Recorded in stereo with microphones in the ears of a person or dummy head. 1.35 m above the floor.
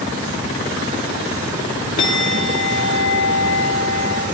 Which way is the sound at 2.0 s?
40° left (ahead or behind).